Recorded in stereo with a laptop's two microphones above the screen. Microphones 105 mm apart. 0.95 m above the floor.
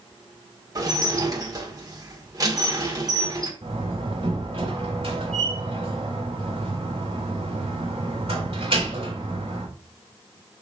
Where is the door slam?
60° right (ahead or behind), 3 m.